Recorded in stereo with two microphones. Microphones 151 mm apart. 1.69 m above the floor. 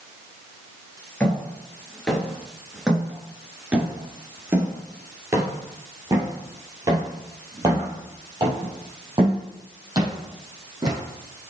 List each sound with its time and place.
1.2 s footsteps: 10° left (ahead or behind), 1.9 m; by 11.0 s 25° right (ahead or behind), 4.5 m